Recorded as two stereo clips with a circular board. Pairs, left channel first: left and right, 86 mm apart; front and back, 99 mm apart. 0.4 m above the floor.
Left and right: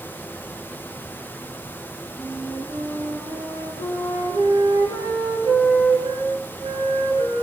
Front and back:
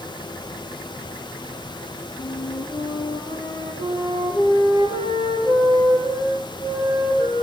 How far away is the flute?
About 8.5 m.